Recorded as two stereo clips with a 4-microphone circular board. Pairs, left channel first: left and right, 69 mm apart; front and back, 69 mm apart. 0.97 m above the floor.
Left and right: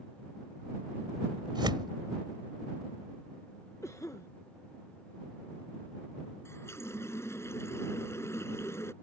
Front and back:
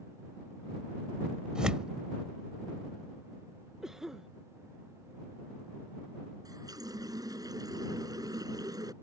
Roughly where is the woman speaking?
No woman speaking in this recording.